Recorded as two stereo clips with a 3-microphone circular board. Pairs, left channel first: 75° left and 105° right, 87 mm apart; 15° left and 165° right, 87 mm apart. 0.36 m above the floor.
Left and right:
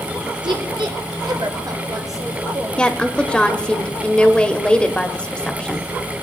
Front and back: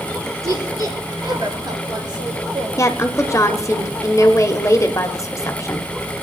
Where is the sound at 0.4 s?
120° right, 4.5 m; by 2.7 s 150° right, 5.5 m.